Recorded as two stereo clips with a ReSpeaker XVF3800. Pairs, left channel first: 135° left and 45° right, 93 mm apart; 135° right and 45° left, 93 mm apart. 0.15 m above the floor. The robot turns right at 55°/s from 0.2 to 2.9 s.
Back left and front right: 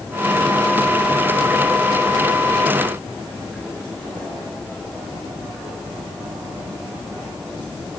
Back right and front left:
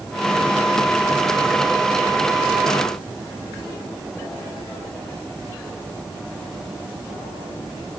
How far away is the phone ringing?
I don't hear a phone ringing.